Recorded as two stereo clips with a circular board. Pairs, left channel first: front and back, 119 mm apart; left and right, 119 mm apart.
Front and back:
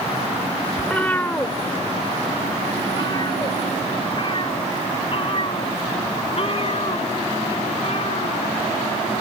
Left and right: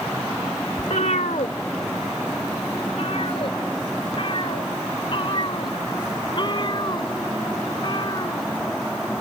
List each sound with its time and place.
0.8 s a cat meowing: 80° left; by 8.5 s 35° left